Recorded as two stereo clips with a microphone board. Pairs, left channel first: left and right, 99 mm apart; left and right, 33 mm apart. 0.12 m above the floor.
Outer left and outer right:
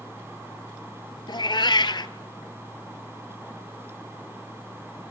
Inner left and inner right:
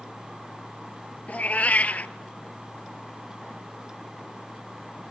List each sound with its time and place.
1.3 s a cat meowing: 50° left (ahead or behind), 0.6 m